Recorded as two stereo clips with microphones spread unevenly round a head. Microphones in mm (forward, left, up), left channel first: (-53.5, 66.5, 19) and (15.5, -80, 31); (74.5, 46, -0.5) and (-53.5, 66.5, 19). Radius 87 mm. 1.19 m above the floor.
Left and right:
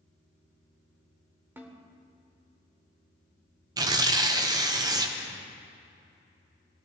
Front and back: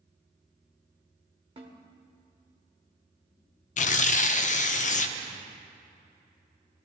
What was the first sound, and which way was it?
A snare drum, 135° right.